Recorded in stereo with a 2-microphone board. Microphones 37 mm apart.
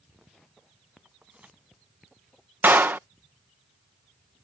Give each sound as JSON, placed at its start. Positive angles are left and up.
{"t": 1.1, "sound": "keys jangling", "side_deg": -30}
{"t": 2.6, "sound": "a clap", "side_deg": -60}